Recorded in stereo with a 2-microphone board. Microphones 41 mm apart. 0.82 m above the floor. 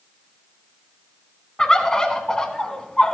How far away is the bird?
About 1.2 m.